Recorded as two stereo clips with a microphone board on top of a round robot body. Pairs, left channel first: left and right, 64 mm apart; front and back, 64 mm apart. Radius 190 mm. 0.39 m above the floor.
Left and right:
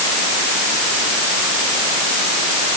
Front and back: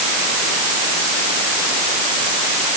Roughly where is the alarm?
I don't hear an alarm.